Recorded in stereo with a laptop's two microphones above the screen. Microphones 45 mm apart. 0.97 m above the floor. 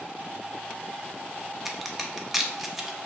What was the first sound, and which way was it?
A crack, 5° right (ahead or behind).